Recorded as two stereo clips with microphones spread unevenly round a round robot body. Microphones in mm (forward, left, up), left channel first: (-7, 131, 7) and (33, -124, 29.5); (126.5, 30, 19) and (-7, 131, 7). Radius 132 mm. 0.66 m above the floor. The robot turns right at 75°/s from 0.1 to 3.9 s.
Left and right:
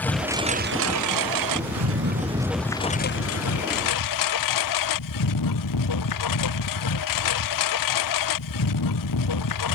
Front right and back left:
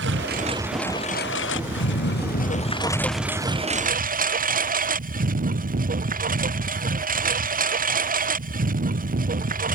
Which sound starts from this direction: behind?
A lawn mower, at 0.0 s.